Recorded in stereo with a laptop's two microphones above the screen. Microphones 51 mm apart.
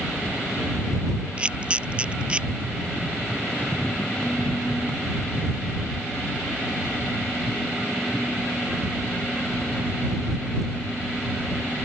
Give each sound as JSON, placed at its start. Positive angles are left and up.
{"t": 1.4, "sound": "a camera shutter", "side_deg": -25}